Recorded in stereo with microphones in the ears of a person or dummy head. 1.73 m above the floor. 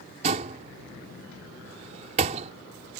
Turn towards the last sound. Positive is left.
turn(degrees=-35)  # may be behind; listen again after turning